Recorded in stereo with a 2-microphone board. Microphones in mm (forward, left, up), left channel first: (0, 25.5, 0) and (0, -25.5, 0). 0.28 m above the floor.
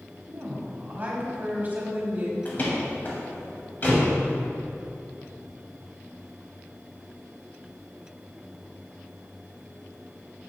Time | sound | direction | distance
0.3 | a woman speaking | 35° right (ahead or behind) | 1.4 m
2.5 | a door slam | 35° left (ahead or behind) | 1.4 m